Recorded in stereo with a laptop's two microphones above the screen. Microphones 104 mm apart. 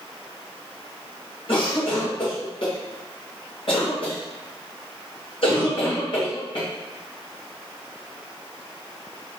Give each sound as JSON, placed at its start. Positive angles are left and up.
{"t": 1.5, "sound": "a cough", "side_deg": 55, "distance_m": 1.3}